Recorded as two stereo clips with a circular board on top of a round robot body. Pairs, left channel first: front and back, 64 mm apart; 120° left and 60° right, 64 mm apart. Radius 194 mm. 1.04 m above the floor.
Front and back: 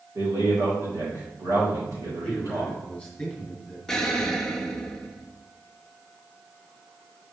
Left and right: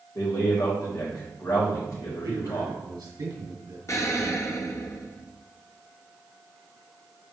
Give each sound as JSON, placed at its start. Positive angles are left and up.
{"t": 0.1, "sound": "a man speaking", "azimuth_deg": 145, "distance_m": 3.5}
{"t": 2.2, "sound": "a man speaking", "azimuth_deg": -85, "distance_m": 2.5}
{"t": 3.9, "sound": "an explosion", "azimuth_deg": 80, "distance_m": 1.2}